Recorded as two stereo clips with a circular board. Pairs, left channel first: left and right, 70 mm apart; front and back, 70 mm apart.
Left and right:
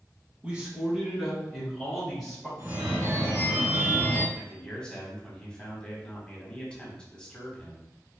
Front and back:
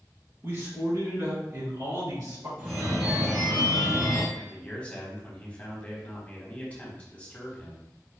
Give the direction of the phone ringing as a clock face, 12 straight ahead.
4 o'clock.